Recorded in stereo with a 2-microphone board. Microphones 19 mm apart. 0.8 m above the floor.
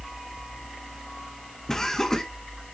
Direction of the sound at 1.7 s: 20° left (ahead or behind).